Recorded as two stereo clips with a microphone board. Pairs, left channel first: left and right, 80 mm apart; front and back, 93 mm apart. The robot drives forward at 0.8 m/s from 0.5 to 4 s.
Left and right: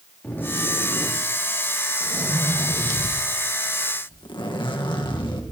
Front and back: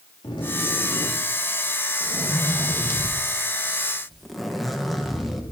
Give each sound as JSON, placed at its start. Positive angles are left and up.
{"t": 0.2, "sound": "a zipper", "azimuth_deg": 25, "distance_m": 3.0}